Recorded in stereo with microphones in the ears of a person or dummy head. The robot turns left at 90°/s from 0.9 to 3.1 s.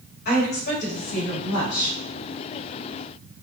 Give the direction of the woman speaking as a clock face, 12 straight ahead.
8 o'clock.